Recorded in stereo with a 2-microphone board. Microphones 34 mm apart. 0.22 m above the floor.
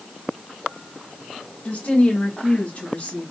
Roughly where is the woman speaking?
Left.